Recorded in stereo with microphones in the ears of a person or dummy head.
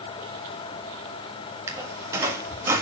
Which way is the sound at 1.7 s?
5° right (ahead or behind).